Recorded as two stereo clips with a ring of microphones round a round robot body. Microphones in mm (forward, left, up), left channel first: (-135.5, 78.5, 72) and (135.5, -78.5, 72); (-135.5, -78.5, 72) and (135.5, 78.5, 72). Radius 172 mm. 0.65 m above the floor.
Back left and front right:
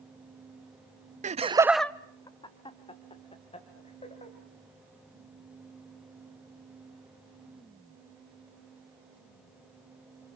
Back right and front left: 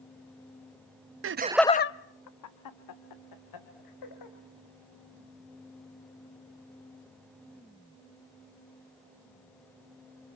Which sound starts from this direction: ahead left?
Laughter, at 1.2 s.